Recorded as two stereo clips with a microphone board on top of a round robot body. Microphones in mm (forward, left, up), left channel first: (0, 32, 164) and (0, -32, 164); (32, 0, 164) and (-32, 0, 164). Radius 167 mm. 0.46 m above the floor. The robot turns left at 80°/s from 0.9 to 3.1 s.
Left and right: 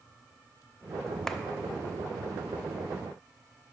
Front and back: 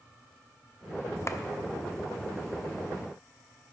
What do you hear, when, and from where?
1.3 s a clap: 10° left, 0.8 m; by 1.4 s 5° left, 0.8 m